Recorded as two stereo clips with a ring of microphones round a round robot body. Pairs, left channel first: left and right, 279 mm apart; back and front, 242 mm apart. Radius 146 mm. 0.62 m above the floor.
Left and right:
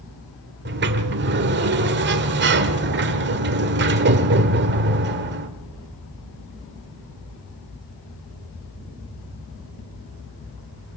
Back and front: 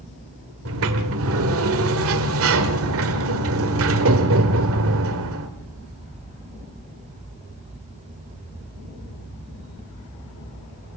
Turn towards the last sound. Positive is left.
turn(degrees=-40)